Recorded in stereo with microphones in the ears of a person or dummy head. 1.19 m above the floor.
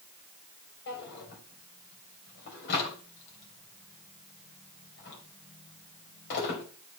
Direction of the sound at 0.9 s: 65° left (ahead or behind).